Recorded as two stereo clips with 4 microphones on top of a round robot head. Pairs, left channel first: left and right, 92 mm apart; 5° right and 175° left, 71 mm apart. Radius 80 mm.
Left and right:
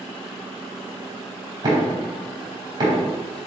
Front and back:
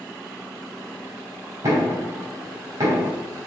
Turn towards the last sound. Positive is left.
turn(degrees=-135)